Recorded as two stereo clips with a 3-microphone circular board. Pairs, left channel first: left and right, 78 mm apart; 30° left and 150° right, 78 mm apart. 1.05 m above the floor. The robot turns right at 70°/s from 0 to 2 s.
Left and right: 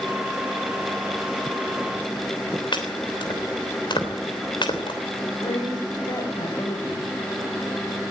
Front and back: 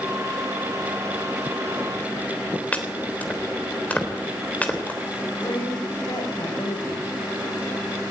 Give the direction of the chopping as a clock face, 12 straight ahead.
9 o'clock.